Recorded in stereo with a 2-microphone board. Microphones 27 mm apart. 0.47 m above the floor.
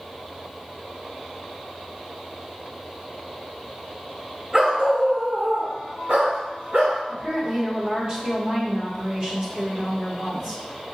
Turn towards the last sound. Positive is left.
turn(degrees=-40)  # may be behind; listen again after turning